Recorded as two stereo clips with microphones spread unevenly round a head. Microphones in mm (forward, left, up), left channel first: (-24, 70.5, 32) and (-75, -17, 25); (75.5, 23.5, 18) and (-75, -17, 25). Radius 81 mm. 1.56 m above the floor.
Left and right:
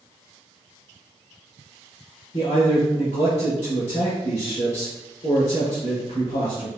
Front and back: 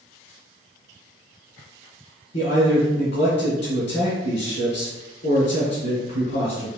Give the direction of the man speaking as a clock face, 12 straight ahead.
11 o'clock.